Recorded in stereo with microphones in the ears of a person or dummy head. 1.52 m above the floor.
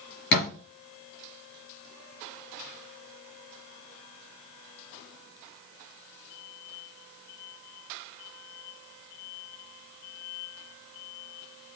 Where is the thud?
55° left (ahead or behind), 3 m.